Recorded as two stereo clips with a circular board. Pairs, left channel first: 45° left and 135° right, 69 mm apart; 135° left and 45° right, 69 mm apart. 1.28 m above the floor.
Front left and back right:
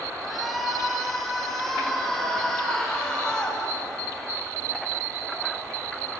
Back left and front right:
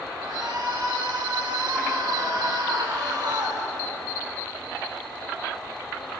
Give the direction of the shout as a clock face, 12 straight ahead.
2 o'clock.